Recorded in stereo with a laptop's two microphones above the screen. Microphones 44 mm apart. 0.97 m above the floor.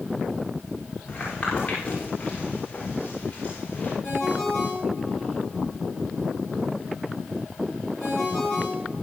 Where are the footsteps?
20° left (ahead or behind), 8.5 m; by 3.9 s 30° left (ahead or behind), 6.5 m.